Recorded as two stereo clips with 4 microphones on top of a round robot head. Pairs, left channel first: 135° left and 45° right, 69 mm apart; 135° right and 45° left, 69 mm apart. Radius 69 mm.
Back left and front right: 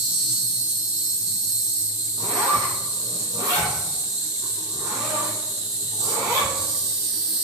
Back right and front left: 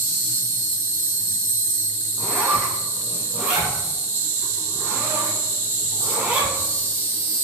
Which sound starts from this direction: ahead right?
A zipper, at 2.2 s.